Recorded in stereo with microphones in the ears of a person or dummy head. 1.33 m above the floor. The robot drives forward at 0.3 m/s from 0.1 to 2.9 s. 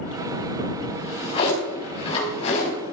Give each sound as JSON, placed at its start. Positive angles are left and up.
{"t": 0.9, "sound": "a drawer", "side_deg": 30, "distance_m": 5.0}